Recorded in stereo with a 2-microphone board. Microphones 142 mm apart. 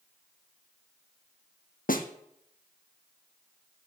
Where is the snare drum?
75° left (ahead or behind), 1.7 m.